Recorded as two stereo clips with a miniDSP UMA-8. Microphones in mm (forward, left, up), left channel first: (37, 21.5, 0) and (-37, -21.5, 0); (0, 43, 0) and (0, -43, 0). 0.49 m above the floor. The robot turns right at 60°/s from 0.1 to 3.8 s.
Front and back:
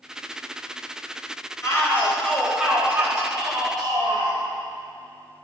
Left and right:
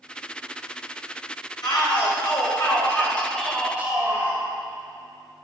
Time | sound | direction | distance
1.6 | a shout | 70° left | 2.5 m